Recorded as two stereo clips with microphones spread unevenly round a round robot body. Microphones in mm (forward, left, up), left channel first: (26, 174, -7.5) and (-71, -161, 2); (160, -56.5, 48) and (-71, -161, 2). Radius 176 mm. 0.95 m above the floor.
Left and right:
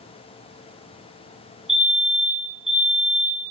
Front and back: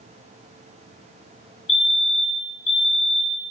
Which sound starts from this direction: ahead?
A fire alarm, at 1.7 s.